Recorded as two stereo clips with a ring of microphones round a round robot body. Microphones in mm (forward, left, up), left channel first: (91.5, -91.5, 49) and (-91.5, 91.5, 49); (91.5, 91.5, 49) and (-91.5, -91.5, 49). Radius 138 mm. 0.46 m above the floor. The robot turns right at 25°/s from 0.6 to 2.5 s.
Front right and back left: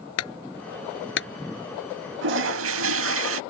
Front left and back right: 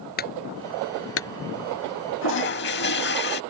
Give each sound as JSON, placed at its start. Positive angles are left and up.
{"t": 0.2, "sound": "a clunk", "azimuth_deg": -10}
{"t": 2.2, "sound": "a toilet flushing", "azimuth_deg": 90}